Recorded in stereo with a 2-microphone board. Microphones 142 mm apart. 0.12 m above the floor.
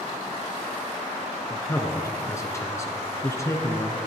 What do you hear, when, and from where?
1.5 s a man speaking: 20° left (ahead or behind), 1.2 m